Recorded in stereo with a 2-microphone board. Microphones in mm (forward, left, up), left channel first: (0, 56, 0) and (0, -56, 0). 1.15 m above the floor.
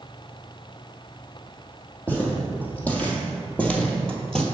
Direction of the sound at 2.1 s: 15° left (ahead or behind).